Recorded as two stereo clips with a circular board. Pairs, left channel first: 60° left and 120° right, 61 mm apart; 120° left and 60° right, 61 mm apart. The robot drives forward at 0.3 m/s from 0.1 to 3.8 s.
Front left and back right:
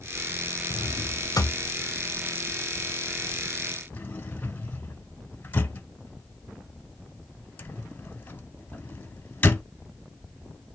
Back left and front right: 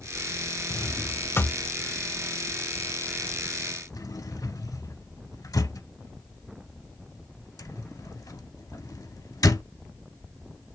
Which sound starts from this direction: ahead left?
A drawer, at 0.7 s.